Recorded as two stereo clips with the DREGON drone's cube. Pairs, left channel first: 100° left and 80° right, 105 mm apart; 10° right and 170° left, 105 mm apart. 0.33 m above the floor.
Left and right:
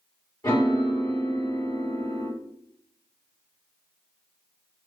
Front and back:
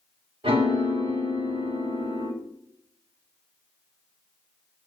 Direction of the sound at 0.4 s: 155° left.